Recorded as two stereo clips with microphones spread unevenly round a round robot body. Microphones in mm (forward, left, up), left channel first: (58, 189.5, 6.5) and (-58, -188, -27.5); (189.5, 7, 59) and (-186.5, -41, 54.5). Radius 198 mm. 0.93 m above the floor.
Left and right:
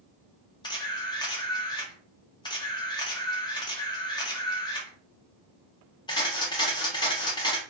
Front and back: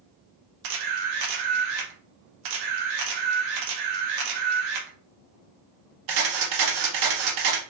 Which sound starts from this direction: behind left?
A camera shutter, at 0.6 s.